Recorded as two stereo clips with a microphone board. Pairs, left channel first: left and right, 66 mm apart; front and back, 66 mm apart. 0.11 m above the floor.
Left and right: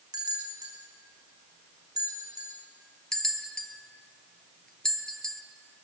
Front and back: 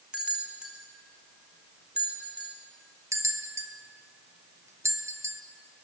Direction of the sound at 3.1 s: 165° left.